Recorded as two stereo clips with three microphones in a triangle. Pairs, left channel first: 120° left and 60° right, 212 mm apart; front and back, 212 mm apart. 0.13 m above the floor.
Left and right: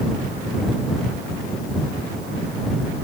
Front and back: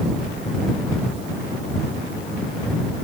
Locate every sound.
Only background noise.